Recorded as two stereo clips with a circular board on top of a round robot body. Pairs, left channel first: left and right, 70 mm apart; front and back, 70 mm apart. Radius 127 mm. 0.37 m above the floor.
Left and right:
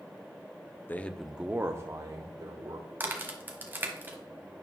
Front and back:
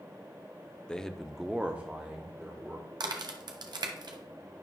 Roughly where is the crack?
Behind right.